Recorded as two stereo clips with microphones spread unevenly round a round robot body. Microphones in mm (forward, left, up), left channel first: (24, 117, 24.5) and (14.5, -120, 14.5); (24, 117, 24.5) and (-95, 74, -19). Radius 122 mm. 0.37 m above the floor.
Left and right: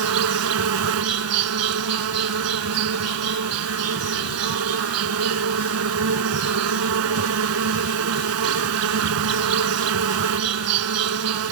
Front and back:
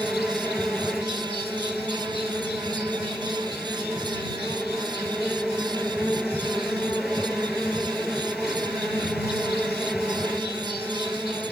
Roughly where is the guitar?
I don't hear a guitar.